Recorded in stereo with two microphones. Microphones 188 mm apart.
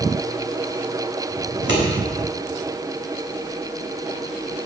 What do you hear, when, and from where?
1.5 s scissors: 85° right, 4 m